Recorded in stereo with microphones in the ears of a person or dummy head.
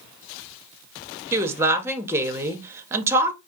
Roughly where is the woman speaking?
Centre.